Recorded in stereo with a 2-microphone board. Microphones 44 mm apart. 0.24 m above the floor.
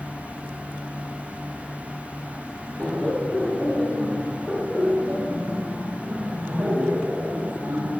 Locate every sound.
2.8 s laughter: 25° left (ahead or behind), 4 m; by 7.9 s 50° right (ahead or behind), 4.5 m